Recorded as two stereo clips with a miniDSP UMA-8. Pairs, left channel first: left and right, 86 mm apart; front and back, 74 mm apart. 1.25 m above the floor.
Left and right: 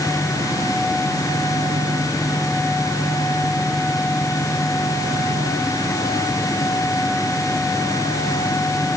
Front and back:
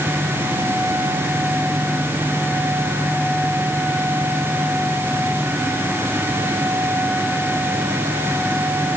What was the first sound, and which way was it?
Only background noise.